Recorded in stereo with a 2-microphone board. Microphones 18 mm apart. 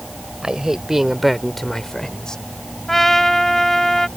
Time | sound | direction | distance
0.4 | a man speaking | 45° right (ahead or behind) | ?
2.9 | a trumpet | 20° left (ahead or behind) | ?